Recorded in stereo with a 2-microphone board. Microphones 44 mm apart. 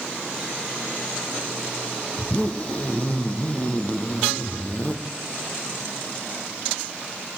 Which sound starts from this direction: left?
A zipper, at 2.2 s.